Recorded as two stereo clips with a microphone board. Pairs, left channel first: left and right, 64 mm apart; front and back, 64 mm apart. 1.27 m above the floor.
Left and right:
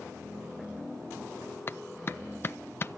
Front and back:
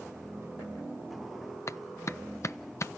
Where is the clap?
40° left, 0.6 m.